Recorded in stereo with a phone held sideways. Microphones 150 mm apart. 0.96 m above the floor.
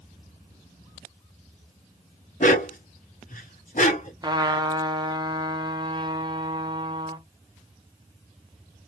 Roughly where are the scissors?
No scissors in this recording.